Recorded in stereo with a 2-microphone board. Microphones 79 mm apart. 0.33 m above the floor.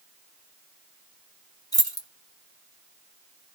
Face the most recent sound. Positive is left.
turn(degrees=50)  # may be behind; listen again after turning